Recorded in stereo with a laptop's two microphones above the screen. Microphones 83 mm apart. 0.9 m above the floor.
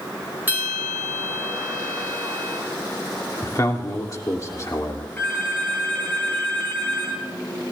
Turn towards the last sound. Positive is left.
turn(degrees=25)  # may be behind; listen again after turning